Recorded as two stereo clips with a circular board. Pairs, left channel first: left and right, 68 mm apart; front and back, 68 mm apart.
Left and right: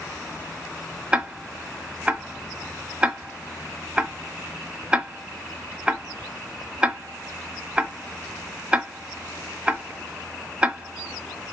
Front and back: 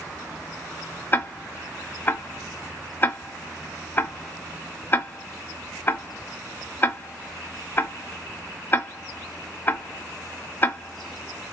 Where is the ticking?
30° right, 0.6 m.